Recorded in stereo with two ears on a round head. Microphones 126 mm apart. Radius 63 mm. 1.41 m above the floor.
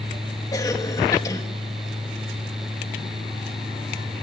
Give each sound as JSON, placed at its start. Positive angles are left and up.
{"t": 0.5, "sound": "a cough", "side_deg": 25, "distance_m": 2.0}